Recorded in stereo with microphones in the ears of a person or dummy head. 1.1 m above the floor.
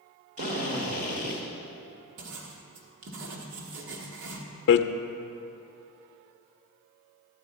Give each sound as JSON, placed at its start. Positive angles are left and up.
{"t": 0.4, "sound": "a drill", "side_deg": -40, "distance_m": 1.6}
{"t": 2.2, "sound": "writing", "side_deg": -70, "distance_m": 1.3}
{"t": 4.7, "sound": "hammering", "side_deg": 55, "distance_m": 0.5}